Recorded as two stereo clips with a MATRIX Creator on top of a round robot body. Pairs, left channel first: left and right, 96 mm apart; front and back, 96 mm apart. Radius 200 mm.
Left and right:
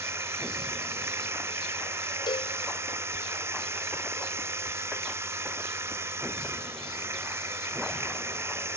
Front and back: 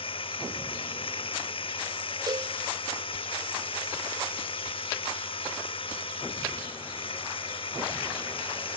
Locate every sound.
0.0 s running water: 25° right
2.3 s a cowbell: 130° left